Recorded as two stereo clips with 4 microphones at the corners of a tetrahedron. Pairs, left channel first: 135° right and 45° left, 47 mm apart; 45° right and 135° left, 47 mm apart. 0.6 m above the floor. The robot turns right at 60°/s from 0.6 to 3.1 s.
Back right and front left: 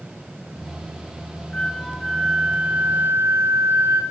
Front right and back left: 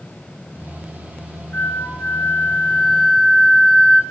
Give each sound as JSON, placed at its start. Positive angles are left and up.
{"t": 1.5, "sound": "a flute", "azimuth_deg": -70, "distance_m": 1.1}